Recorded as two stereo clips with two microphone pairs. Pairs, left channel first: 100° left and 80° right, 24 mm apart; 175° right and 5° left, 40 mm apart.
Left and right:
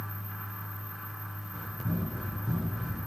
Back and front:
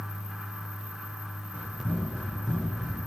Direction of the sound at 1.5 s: 120° right.